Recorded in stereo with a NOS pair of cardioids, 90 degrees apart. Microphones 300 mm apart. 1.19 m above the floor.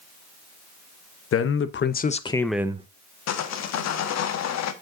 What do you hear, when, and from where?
1.3 s a man speaking: 50° left, 1.1 m; by 2.9 s 25° right, 0.7 m
3.3 s sawing: 65° left, 1.2 m